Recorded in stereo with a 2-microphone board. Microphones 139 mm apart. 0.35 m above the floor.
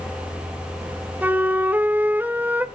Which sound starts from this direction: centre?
A flute, at 1.2 s.